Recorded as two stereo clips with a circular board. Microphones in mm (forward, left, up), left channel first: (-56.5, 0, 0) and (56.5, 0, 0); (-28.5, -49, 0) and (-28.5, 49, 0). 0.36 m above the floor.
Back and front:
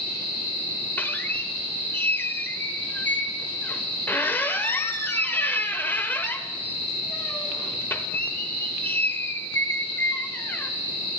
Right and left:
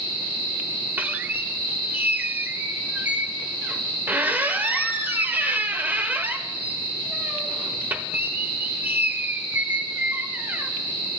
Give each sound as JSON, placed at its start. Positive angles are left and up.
{"t": 1.0, "sound": "a squeak", "azimuth_deg": 135, "distance_m": 0.9}